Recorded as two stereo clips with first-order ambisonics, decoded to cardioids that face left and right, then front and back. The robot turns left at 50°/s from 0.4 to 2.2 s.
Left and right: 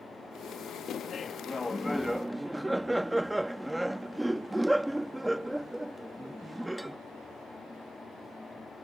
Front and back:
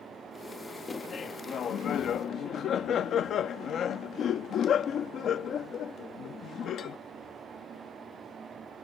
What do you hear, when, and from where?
0.9 s laughter: 55° left; by 7.0 s 10° right